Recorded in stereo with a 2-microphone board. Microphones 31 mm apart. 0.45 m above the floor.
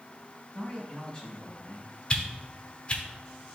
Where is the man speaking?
25° left (ahead or behind), 3 m.